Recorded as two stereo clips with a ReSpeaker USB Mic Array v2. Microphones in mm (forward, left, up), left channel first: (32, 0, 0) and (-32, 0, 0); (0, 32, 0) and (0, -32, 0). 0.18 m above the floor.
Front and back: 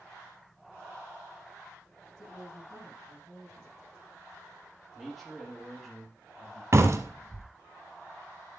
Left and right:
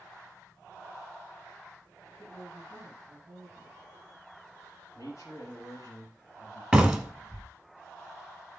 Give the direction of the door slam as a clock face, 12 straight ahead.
6 o'clock.